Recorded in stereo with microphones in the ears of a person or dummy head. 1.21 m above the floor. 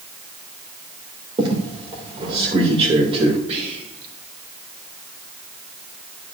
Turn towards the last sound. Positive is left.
turn(degrees=-35)  # may be behind; listen again after turning